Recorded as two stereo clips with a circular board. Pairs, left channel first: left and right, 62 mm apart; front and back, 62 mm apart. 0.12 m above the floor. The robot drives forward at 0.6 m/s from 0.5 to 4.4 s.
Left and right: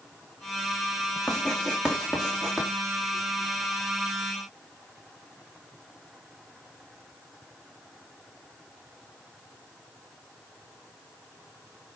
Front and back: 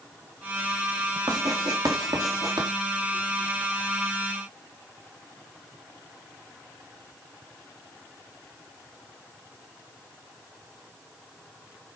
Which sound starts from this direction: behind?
Writing, at 1.3 s.